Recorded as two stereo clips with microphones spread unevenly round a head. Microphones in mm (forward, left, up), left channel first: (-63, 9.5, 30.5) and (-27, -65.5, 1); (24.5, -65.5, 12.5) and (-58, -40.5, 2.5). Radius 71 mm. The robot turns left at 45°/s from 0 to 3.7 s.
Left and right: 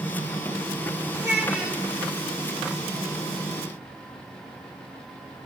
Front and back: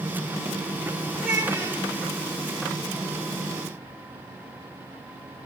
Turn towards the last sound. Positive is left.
turn(degrees=125)